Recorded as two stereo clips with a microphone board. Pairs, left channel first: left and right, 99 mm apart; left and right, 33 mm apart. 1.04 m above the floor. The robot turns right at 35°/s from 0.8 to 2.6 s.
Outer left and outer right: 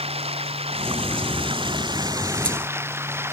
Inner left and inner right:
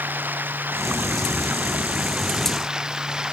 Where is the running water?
85° right; by 3.3 s 25° right.